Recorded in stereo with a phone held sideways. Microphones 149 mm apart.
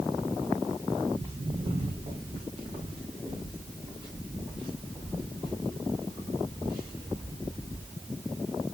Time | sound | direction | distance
1.1 | footsteps | 40° right (ahead or behind) | 4 m